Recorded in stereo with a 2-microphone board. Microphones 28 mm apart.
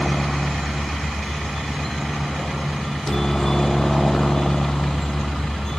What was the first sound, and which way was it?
A helicopter, centre (ahead or behind).